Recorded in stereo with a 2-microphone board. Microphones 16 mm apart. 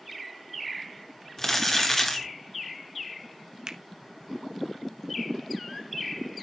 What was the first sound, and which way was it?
Crumpling, 20° left (ahead or behind).